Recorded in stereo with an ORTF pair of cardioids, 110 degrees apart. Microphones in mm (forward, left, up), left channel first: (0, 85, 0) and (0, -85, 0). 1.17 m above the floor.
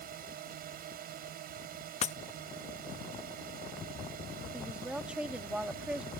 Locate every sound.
0.0 s a drone: 60° right
2.0 s breaking glass: 45° left
4.5 s a woman speaking: 5° right